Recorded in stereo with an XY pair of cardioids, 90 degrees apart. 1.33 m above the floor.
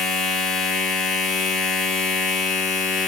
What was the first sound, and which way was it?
A machine running, 65° left.